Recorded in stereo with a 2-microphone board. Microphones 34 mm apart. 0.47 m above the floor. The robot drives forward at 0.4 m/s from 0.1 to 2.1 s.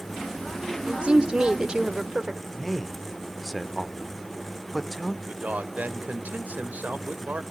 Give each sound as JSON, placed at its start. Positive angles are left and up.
{"t": 0.8, "sound": "a woman speaking", "side_deg": -35, "distance_m": 1.0}
{"t": 2.5, "sound": "a man speaking", "side_deg": 0, "distance_m": 1.3}
{"t": 5.3, "sound": "a man speaking", "side_deg": -50, "distance_m": 1.7}